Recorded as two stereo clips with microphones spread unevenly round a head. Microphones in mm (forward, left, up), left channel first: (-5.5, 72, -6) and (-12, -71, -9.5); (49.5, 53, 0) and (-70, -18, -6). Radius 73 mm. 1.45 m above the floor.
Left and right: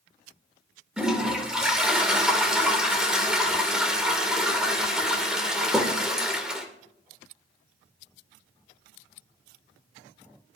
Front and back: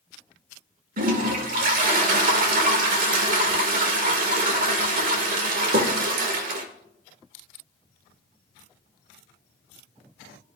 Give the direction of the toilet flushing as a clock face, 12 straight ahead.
6 o'clock.